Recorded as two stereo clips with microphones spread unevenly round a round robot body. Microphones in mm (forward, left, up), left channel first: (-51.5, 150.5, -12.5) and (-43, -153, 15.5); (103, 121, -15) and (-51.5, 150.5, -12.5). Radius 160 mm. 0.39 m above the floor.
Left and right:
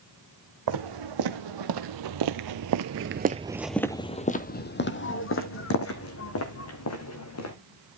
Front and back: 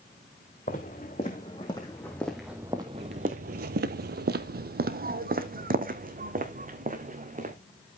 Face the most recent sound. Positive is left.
turn(degrees=130)